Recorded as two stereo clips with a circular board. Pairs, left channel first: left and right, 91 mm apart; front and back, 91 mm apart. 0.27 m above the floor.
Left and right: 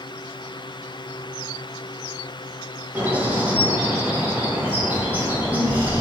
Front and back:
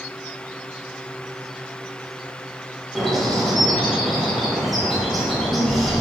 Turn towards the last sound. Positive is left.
turn(degrees=-85)